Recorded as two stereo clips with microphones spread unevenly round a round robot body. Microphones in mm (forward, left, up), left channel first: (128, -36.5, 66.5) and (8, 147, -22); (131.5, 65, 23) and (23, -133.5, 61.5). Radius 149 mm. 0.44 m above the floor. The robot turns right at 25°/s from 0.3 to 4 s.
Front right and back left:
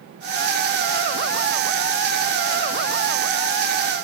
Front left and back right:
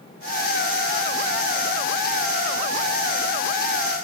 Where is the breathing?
No breathing in this recording.